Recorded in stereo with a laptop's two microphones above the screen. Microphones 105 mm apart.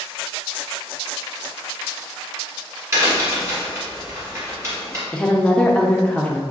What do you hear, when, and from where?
2.9 s a crack: 25° right (ahead or behind), 1.2 m
5.1 s a woman speaking: 10° left (ahead or behind), 0.6 m